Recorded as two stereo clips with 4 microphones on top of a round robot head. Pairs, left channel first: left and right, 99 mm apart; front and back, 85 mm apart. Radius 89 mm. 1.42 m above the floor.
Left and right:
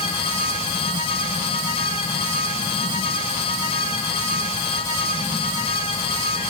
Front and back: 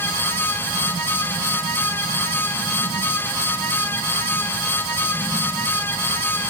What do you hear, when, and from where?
Only background noise.